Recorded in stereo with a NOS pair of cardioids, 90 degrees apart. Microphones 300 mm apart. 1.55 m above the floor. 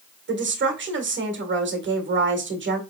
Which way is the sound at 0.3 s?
40° right.